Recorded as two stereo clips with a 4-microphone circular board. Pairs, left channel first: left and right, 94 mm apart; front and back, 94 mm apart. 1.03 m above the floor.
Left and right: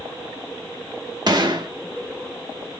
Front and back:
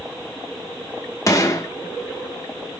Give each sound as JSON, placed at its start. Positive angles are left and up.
{"t": 1.3, "sound": "a gunshot", "azimuth_deg": -55, "distance_m": 0.7}